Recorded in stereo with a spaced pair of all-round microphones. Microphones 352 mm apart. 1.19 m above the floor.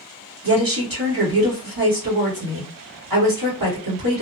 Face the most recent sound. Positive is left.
turn(degrees=-75)  # may be behind; listen again after turning